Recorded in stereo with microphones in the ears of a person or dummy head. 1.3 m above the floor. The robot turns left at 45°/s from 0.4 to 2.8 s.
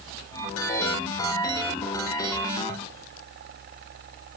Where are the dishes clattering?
No dishes clattering in this recording.